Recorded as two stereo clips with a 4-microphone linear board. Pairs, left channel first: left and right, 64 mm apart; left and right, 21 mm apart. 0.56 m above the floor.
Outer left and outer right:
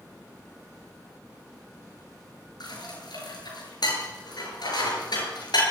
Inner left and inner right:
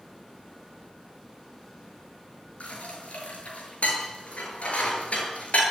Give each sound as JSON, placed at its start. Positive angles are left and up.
{"t": 2.6, "sound": "dishes clattering", "side_deg": 80, "distance_m": 8.0}